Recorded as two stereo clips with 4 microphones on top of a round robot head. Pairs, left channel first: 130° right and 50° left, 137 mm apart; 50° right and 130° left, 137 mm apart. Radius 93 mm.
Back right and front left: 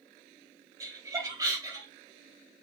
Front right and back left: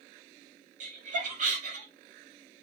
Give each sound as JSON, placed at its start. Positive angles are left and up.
{"t": 0.8, "sound": "laughter", "azimuth_deg": 110, "distance_m": 3.5}